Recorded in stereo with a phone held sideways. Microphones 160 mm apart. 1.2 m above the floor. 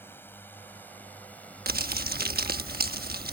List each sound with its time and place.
0.0 s a drone: 15° left (ahead or behind); by 3.3 s 5° left (ahead or behind)
1.7 s crumpling: 75° right (ahead or behind)